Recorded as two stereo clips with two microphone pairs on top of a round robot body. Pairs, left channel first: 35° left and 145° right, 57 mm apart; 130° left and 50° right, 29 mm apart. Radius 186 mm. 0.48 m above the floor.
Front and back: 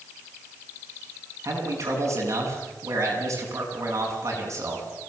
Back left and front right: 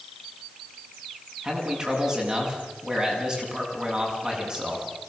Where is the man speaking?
115° right, 8.5 m.